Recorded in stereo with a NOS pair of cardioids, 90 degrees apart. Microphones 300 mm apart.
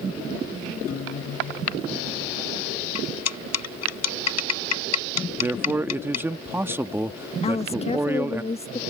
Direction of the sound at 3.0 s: 65° left.